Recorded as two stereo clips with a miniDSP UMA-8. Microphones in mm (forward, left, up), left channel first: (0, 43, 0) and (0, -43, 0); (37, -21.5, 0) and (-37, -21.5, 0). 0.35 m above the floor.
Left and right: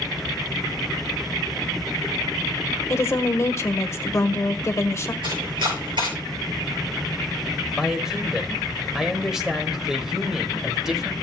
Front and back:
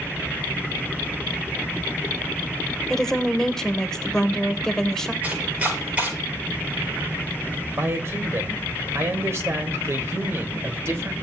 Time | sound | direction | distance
2.9 | a woman speaking | 75° left | 1.1 m
5.2 | chopping | 115° right | 6.5 m
7.8 | a man speaking | 170° right | 1.5 m